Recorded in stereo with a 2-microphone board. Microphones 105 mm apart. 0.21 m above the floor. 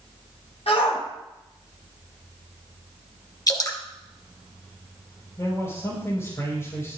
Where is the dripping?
35° left (ahead or behind), 1.8 m.